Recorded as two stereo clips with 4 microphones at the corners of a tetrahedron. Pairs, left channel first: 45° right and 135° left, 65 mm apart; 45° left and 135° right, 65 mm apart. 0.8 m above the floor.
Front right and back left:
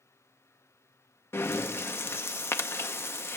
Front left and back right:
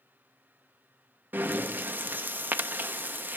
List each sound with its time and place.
1.3 s breathing: 80° right, 0.5 m